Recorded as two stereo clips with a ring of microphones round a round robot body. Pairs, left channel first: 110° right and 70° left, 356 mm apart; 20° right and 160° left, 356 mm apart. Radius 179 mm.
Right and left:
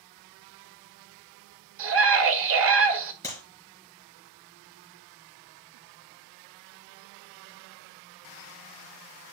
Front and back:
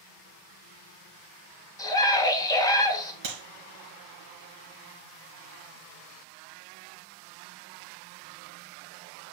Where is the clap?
165° left, 4 m.